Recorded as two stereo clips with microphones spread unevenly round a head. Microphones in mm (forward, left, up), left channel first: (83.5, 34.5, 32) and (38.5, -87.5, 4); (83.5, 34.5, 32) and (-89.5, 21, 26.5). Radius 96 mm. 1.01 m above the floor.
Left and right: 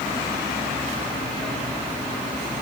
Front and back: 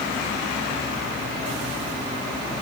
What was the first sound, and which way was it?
Only background noise.